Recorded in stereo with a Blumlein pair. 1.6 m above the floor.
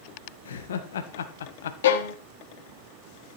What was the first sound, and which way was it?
Laughter, 65° left.